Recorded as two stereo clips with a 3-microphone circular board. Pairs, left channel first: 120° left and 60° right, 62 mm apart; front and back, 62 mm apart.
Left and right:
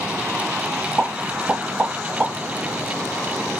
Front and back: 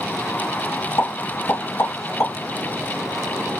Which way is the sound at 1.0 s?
5° right.